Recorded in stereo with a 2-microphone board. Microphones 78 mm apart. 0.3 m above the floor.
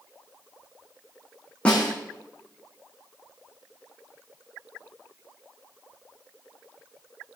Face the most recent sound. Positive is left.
turn(degrees=15)  # may be behind; listen again after turning